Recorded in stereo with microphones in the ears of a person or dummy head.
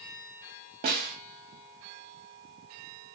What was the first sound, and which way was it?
A snare drum, 30° right (ahead or behind).